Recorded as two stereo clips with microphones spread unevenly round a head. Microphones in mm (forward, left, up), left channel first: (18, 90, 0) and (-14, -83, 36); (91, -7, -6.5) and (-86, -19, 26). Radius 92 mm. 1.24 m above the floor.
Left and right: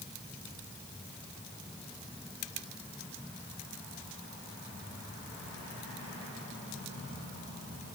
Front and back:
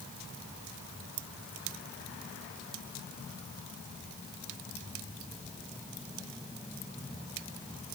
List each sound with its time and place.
Only background noise.